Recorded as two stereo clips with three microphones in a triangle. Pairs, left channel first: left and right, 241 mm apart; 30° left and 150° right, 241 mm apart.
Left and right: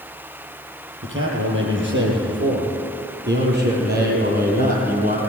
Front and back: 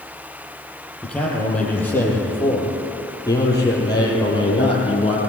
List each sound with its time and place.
1.0 s a man speaking: 55° right, 8 m; by 5.2 s 35° right, 7.5 m